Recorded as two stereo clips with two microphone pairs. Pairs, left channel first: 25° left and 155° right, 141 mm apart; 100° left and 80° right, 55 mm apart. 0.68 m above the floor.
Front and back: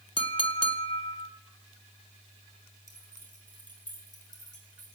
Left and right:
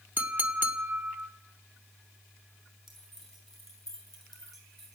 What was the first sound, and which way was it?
A clink, 25° right.